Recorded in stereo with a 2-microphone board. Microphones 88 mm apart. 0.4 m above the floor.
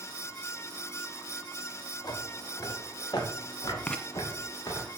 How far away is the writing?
About 0.7 m.